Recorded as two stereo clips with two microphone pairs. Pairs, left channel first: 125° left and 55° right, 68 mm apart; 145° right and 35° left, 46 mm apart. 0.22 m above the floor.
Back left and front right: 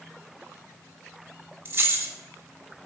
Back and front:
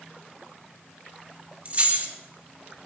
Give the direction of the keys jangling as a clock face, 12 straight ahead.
12 o'clock.